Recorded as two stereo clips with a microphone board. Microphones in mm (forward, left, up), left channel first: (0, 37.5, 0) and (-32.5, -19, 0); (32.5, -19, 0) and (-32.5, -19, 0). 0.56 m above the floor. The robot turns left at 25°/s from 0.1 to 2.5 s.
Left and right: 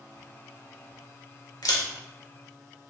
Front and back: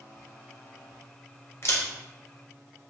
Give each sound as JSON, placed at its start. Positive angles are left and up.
{"t": 1.6, "sound": "a camera shutter", "azimuth_deg": 45, "distance_m": 0.8}